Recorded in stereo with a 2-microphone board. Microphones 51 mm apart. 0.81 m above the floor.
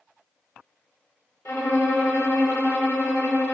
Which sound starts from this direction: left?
A violin, at 1.4 s.